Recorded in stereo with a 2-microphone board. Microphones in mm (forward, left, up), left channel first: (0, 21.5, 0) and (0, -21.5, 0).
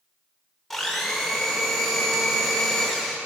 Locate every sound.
0.7 s a blender: 5° left (ahead or behind), 1.1 m